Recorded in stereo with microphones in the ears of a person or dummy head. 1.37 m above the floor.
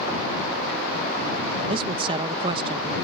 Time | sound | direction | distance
1.7 | a man speaking | 30° right (ahead or behind) | ?